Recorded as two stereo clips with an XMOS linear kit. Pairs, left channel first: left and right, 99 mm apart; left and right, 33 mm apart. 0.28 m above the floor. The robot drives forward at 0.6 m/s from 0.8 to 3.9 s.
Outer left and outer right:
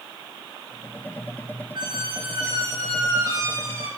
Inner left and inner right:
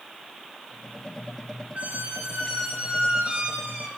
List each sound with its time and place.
1.8 s a squeak: 55° right (ahead or behind), 1.5 m; by 3.9 s 30° right (ahead or behind), 2.5 m